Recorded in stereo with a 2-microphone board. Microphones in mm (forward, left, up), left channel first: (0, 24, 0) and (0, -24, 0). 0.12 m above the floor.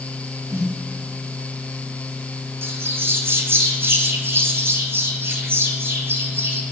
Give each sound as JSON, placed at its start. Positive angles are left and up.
{"t": 0.5, "sound": "a snare drum", "side_deg": -75, "distance_m": 4.0}
{"t": 2.6, "sound": "a bird", "side_deg": -50, "distance_m": 1.3}